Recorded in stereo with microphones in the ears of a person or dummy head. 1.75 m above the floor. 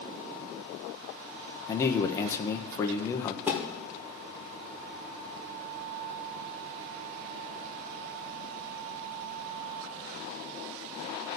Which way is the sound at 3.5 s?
5° right (ahead or behind).